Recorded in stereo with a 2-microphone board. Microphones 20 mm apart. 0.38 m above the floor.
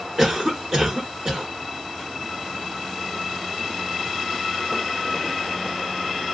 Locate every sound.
0.2 s a cough: 20° right (ahead or behind), 1.2 m